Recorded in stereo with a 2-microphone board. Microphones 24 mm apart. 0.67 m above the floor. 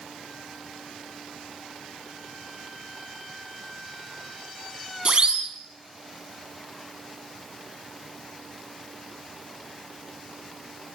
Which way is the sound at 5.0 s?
40° right (ahead or behind).